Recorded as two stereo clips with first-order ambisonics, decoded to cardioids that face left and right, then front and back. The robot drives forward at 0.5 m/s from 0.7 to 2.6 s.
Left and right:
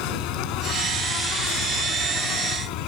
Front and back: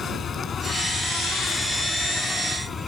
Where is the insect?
70° left; by 2.9 s 75° left.